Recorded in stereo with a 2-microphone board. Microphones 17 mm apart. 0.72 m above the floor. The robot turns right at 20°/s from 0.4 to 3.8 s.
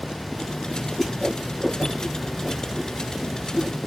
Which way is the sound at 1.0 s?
20° left (ahead or behind).